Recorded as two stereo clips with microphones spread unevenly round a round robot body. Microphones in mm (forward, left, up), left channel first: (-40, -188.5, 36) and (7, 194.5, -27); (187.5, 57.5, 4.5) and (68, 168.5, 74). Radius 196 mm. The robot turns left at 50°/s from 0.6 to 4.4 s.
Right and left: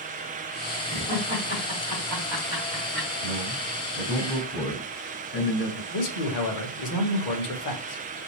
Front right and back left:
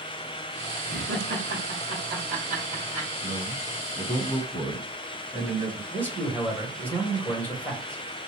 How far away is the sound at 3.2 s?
About 1.5 m.